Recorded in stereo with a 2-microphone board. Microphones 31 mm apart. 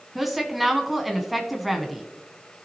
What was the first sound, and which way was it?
A woman speaking, 5° right (ahead or behind).